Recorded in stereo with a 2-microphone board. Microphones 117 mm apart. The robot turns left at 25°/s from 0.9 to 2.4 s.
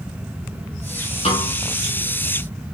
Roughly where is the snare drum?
Left.